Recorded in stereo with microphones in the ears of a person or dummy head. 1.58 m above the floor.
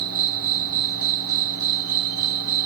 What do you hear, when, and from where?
0.0 s an insect: 55° right (ahead or behind)